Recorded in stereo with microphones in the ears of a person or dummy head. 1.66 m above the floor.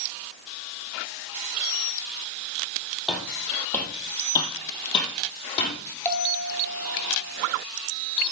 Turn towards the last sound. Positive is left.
turn(degrees=10)  # may be behind; listen again after turning